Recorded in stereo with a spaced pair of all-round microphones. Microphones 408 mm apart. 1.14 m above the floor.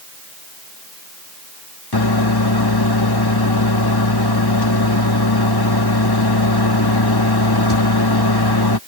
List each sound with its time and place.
1.9 s a microwave: 65° left (ahead or behind)